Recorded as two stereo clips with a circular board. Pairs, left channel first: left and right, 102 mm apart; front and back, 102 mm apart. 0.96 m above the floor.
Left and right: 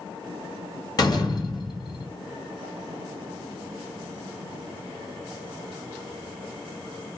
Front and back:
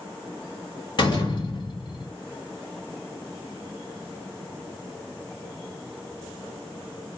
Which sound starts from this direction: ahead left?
A door slam, at 1.0 s.